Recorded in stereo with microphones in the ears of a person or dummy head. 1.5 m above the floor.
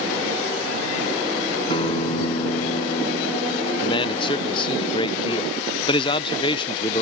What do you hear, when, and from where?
1.7 s a guitar: 30° left (ahead or behind)
3.8 s a man speaking: 30° left (ahead or behind)